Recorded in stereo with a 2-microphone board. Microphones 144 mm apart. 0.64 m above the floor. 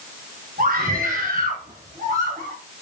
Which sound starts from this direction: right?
A scream, at 0.6 s.